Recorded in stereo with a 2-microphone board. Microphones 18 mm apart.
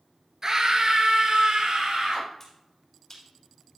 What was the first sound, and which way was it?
A scream, 35° right (ahead or behind).